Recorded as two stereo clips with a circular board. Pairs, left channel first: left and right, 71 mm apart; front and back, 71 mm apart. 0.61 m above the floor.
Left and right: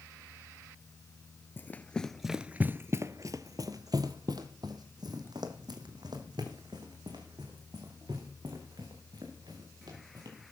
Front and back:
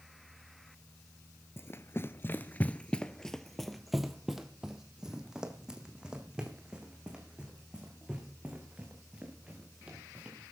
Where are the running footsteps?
40° left, 0.8 m; by 10.4 s 105° right, 5 m.